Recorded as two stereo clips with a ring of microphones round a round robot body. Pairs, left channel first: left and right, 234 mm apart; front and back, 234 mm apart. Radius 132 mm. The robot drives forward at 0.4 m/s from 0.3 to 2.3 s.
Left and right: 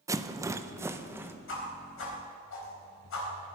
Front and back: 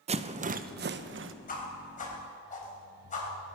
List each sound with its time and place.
0.1 s a rattle: 155° right, 0.6 m; by 1.3 s 170° right, 0.8 m
1.5 s a whoosh: 55° left, 4 m; by 3.5 s 60° left, 4 m